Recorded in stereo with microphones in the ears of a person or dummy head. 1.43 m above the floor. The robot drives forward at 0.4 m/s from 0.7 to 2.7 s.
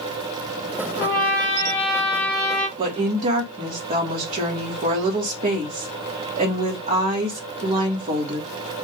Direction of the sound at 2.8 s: 40° right (ahead or behind).